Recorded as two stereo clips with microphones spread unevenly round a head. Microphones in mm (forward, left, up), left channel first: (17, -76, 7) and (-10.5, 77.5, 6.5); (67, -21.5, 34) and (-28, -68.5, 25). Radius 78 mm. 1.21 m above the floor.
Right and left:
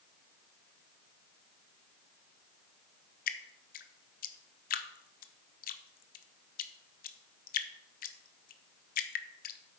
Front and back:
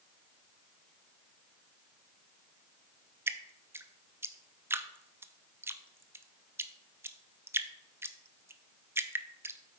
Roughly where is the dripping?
Right.